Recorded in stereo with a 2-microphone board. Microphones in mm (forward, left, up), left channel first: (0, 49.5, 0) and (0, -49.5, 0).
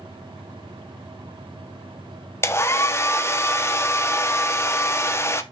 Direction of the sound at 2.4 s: 25° left (ahead or behind).